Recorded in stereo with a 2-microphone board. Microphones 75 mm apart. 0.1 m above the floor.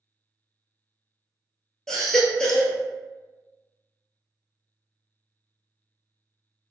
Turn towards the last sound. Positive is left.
turn(degrees=10)  # may be behind; listen again after turning